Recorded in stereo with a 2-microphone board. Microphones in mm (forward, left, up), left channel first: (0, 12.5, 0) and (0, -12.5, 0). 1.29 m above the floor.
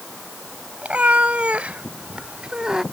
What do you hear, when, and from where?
0.8 s a cat meowing: 70° right (ahead or behind); by 2.8 s 25° right (ahead or behind)